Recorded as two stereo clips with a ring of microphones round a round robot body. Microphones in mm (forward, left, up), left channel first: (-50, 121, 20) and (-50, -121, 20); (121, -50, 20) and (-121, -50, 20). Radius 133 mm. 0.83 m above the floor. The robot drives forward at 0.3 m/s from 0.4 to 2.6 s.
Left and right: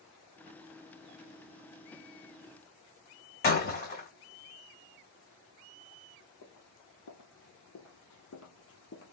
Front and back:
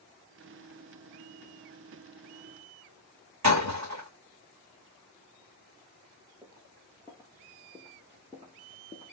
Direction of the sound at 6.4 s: 105° left.